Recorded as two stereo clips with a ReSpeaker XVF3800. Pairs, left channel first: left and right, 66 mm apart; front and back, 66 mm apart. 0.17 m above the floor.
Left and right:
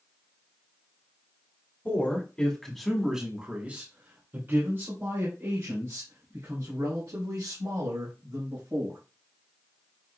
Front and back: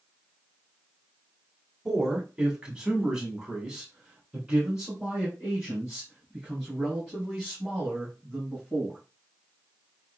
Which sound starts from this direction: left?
A man speaking, at 1.9 s.